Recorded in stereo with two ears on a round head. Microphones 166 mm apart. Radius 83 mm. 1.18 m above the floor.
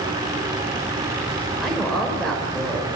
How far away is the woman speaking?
About 4 m.